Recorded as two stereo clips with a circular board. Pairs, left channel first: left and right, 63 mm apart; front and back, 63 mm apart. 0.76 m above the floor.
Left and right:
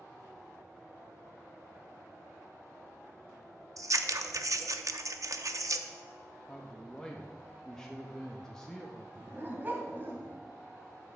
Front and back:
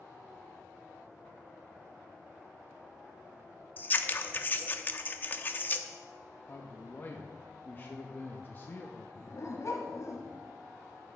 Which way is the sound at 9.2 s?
35° right.